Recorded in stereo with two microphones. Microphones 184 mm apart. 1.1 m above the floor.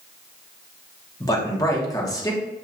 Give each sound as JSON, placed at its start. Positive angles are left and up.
{"t": 1.2, "sound": "a man speaking", "side_deg": 20, "distance_m": 1.0}